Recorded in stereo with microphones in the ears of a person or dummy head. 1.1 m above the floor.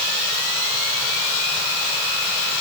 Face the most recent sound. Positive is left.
No sound to turn to.